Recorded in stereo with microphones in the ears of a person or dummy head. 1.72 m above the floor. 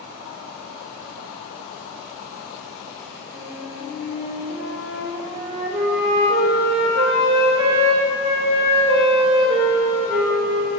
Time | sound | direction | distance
3.3 | a flute | 50° right (ahead or behind) | 2 m